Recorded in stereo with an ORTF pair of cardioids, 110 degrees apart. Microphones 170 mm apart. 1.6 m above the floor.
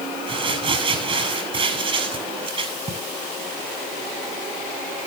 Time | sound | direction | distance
0.3 | crumpling | 30° right | 7.5 m